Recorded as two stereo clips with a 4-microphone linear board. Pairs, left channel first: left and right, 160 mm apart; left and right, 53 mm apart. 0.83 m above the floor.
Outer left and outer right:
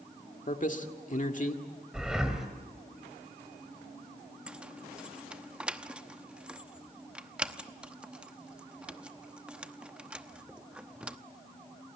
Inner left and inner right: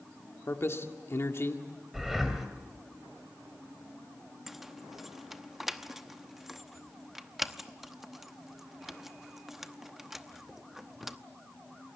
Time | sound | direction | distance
0.5 | a man speaking | 55° left (ahead or behind) | 1.8 m
1.9 | breathing | 5° right (ahead or behind) | 2.5 m
4.5 | keys jangling | 5° right (ahead or behind) | 0.9 m